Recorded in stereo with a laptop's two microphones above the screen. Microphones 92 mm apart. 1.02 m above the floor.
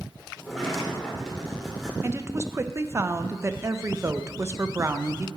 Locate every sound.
0.4 s a sliding door: 5° left (ahead or behind), 2 m
2.0 s a woman speaking: 30° right (ahead or behind), 0.5 m